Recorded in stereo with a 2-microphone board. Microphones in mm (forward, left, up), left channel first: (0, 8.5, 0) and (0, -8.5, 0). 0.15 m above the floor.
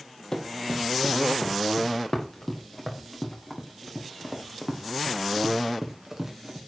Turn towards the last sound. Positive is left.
turn(degrees=-30)  # may be behind; listen again after turning